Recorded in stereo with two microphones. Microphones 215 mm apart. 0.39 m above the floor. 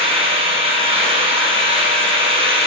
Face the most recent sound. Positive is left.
turn(degrees=-25)  # may be behind; listen again after turning